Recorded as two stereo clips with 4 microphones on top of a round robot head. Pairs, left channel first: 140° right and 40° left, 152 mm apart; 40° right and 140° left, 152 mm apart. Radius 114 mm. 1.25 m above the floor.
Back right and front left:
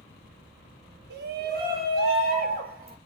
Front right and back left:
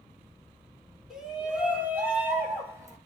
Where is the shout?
50° left, 4 m; by 3.0 s 65° left, 4.5 m.